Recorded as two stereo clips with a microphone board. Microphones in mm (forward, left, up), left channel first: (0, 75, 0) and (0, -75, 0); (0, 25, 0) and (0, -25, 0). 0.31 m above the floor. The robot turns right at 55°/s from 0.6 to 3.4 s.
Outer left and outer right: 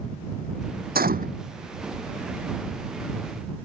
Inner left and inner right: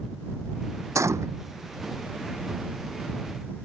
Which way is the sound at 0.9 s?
85° right.